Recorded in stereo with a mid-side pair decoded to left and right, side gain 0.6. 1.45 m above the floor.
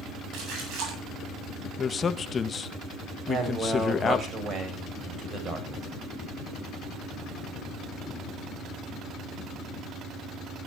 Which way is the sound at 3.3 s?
40° right.